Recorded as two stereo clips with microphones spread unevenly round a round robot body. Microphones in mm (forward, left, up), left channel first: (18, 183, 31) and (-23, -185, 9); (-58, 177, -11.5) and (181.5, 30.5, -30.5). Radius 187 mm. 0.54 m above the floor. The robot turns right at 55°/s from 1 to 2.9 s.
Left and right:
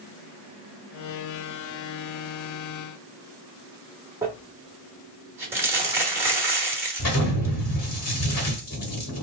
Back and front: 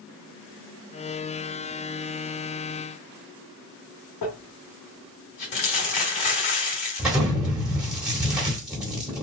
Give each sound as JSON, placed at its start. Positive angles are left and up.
{"t": 4.2, "sound": "crumpling", "azimuth_deg": 180, "distance_m": 1.1}
{"t": 7.0, "sound": "an explosion", "azimuth_deg": 50, "distance_m": 1.7}